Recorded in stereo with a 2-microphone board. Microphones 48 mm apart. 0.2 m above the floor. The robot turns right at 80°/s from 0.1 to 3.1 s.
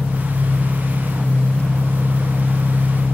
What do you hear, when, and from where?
0.0 s an engine running: 175° right, 4.5 m; by 3.1 s 65° left, 4.5 m